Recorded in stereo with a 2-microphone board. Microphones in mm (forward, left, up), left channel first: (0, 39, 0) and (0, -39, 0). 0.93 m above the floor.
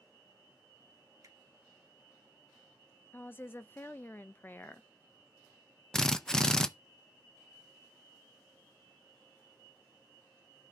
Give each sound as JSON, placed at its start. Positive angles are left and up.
{"t": 1.2, "sound": "a finger snap", "side_deg": -45, "distance_m": 2.0}
{"t": 3.1, "sound": "a woman speaking", "side_deg": 25, "distance_m": 0.6}
{"t": 5.9, "sound": "a drill", "side_deg": 5, "distance_m": 0.5}